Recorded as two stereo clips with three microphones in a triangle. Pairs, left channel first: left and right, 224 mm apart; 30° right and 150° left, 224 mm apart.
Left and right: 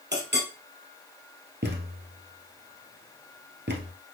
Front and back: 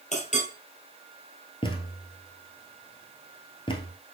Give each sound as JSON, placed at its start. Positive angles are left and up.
{"t": 0.1, "sound": "a clink", "azimuth_deg": -80, "distance_m": 1.7}
{"t": 1.6, "sound": "a thud", "azimuth_deg": -90, "distance_m": 1.1}